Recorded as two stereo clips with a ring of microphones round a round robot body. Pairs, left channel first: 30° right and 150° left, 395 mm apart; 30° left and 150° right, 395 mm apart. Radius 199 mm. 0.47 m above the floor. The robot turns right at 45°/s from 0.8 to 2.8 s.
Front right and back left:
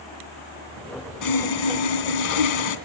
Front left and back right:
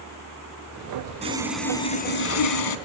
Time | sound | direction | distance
1.2 | sawing | 75° right | 2.5 m